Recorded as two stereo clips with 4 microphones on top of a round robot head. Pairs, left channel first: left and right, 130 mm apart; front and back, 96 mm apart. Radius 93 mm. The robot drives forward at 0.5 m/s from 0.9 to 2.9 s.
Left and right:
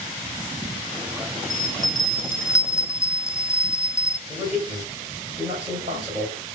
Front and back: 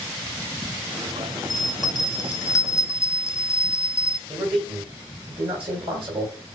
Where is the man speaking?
155° right, 2.5 m.